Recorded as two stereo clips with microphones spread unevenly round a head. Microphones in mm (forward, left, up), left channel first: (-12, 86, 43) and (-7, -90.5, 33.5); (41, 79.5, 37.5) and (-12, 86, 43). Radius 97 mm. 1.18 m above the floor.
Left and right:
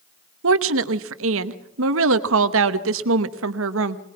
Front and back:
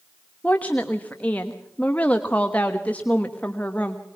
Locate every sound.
0.4 s a woman speaking: 85° right, 1.1 m